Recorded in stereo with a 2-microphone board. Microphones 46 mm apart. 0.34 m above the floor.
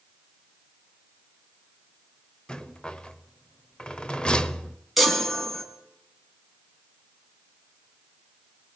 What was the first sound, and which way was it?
A rattle, 20° left (ahead or behind).